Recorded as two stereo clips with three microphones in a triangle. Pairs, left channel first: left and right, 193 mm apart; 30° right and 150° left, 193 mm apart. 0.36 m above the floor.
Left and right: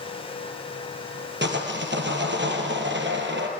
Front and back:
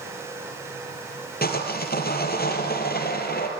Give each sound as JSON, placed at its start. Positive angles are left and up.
{"t": 1.4, "sound": "sawing", "azimuth_deg": -70, "distance_m": 2.5}